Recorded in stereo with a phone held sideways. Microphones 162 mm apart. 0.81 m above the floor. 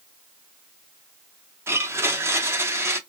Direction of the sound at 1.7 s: 15° right (ahead or behind).